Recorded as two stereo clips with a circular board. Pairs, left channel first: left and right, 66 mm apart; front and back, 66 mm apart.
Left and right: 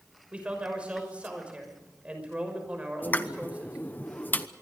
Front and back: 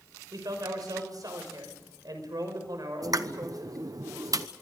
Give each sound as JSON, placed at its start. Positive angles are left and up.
{"t": 0.3, "sound": "a man speaking", "azimuth_deg": -160, "distance_m": 6.0}
{"t": 3.0, "sound": "a pop", "azimuth_deg": 150, "distance_m": 0.9}